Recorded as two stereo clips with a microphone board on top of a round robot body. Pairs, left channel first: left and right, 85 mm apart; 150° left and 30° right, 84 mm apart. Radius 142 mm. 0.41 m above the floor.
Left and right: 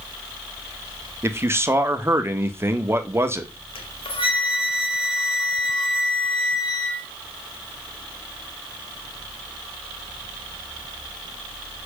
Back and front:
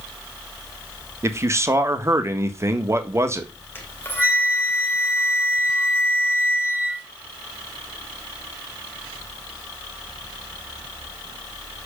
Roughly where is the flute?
Left.